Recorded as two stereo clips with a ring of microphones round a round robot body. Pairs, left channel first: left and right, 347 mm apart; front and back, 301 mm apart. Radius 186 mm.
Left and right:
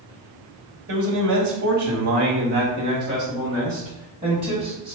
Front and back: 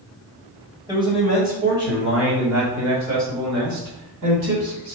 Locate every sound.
0.9 s a man speaking: 105° right, 1.5 m; by 5.0 s straight behind, 3.5 m